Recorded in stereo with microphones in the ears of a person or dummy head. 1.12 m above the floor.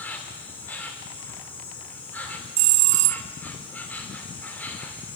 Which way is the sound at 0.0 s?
5° left (ahead or behind).